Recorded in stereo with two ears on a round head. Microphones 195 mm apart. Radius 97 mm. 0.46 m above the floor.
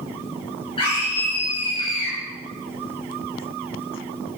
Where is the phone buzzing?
No phone buzzing in this recording.